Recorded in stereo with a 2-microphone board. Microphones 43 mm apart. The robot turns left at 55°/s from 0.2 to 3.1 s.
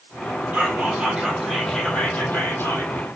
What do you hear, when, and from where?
0.5 s whispering: 130° right, 3.5 m; by 2.9 s 100° left, 3.5 m